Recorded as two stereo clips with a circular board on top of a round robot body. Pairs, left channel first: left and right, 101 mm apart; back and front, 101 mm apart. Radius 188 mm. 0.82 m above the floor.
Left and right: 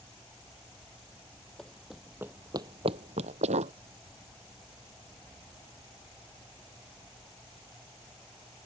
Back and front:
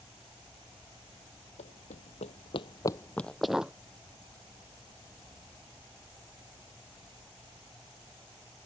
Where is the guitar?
No guitar in this recording.